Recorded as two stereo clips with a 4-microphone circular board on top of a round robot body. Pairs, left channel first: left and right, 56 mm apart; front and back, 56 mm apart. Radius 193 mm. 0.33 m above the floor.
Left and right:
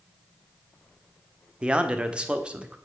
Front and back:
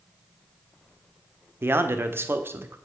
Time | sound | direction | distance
1.6 | a man speaking | 155° right | 1.3 m